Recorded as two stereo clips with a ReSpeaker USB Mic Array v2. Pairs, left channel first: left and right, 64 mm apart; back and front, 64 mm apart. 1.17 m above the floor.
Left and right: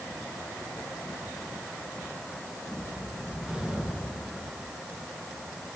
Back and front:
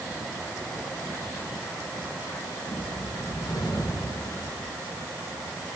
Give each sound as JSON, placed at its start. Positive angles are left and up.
{"t": 2.7, "sound": "a whoosh", "azimuth_deg": -170, "distance_m": 7.0}